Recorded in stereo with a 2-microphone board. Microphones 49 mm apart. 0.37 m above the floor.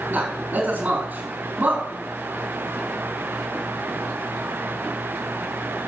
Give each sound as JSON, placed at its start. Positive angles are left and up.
{"t": 0.1, "sound": "a man speaking", "side_deg": -35, "distance_m": 4.0}